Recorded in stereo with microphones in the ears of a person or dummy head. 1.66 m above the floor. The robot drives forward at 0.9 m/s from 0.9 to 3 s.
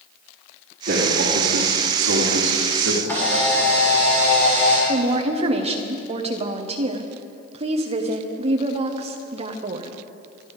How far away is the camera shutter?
About 6.5 m.